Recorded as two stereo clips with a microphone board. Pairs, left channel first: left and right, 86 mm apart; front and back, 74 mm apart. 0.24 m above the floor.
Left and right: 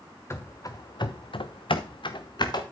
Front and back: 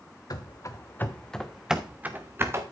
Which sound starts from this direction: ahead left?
Running footsteps, at 0.3 s.